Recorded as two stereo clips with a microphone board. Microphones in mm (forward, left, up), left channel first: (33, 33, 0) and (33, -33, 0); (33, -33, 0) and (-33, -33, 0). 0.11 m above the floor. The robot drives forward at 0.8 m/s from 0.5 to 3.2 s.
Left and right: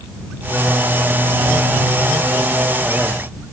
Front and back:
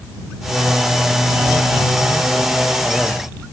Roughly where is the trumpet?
I don't hear a trumpet.